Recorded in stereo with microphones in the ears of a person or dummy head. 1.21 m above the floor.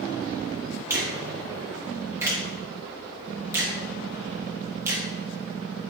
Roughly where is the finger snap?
Centre.